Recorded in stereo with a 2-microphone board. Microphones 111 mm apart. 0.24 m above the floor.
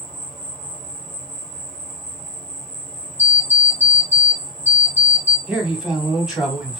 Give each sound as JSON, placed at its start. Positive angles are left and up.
{"t": 0.0, "sound": "an insect", "side_deg": 5, "distance_m": 1.1}
{"t": 3.2, "sound": "an alarm clock", "side_deg": -60, "distance_m": 1.0}
{"t": 5.5, "sound": "a man speaking", "side_deg": -5, "distance_m": 1.3}